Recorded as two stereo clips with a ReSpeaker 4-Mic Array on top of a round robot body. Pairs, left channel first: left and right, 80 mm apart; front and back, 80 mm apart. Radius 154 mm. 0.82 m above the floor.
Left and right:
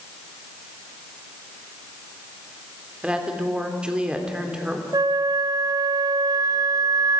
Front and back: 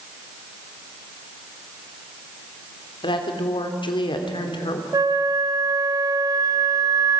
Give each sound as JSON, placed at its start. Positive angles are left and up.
{"t": 3.0, "sound": "a woman speaking", "azimuth_deg": -10, "distance_m": 3.0}
{"t": 4.9, "sound": "a flute", "azimuth_deg": -135, "distance_m": 1.1}